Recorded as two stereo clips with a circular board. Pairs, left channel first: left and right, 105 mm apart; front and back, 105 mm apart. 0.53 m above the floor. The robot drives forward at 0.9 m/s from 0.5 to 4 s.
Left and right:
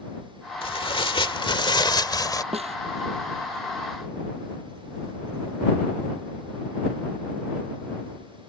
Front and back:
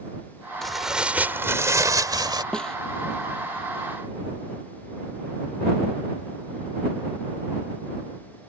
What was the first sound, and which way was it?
Tearing paper, 85° left.